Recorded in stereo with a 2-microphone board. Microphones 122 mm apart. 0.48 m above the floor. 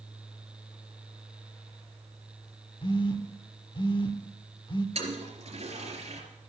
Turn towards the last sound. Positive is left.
turn(degrees=-55)  # may be behind; listen again after turning